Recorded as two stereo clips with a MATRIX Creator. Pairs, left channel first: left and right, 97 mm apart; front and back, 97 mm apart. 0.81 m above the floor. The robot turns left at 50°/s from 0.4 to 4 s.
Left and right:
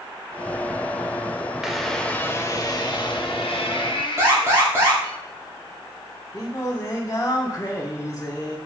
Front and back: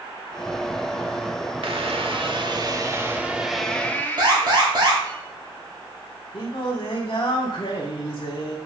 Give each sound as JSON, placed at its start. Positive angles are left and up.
{"t": 1.6, "sound": "a squeak", "azimuth_deg": -175, "distance_m": 0.8}
{"t": 4.2, "sound": "an alarm", "azimuth_deg": -150, "distance_m": 2.0}
{"t": 6.3, "sound": "singing", "azimuth_deg": 35, "distance_m": 1.4}